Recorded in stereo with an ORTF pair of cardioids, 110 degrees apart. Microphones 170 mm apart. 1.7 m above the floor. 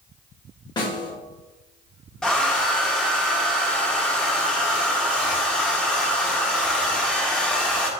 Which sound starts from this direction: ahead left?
A snare drum, at 0.8 s.